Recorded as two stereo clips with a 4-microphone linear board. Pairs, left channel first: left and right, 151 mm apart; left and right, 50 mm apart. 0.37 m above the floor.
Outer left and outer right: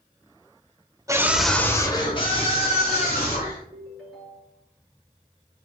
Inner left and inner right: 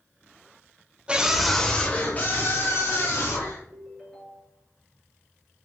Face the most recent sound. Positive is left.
turn(degrees=0)  # may be behind; listen again after turning